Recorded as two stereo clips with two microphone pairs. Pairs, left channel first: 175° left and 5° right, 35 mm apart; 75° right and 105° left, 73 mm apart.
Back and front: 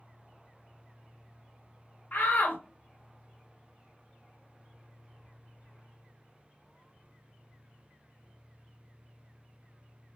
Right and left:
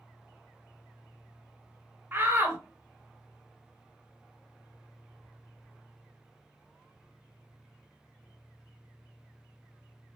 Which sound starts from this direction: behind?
A shout, at 2.1 s.